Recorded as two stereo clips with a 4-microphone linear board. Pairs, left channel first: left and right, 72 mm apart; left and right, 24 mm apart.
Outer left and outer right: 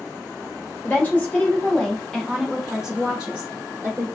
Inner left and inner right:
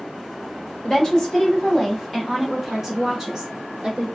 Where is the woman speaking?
25° left (ahead or behind), 1.5 m; by 4.1 s 30° right (ahead or behind), 1.3 m.